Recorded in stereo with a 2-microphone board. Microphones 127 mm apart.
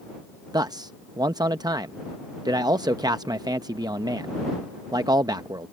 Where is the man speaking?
30° right (ahead or behind).